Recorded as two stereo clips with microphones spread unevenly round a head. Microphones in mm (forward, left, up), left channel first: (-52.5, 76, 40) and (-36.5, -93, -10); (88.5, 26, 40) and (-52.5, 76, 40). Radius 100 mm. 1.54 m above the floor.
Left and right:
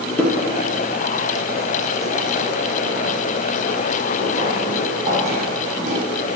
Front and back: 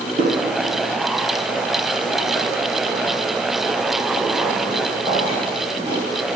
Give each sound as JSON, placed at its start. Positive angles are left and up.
{"t": 0.2, "sound": "footsteps", "azimuth_deg": 160, "distance_m": 2.0}